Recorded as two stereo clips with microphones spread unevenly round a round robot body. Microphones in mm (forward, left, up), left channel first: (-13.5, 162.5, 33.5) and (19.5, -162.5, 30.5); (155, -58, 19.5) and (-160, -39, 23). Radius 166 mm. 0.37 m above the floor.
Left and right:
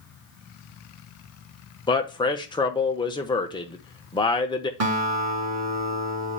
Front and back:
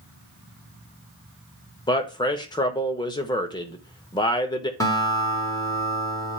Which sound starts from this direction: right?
A guitar, at 4.8 s.